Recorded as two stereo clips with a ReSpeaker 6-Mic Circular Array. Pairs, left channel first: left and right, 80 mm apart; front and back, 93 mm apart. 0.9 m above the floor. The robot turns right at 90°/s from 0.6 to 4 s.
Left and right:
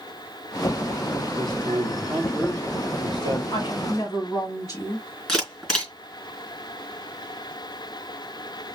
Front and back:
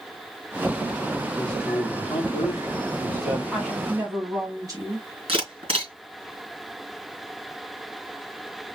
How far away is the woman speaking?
About 2.5 m.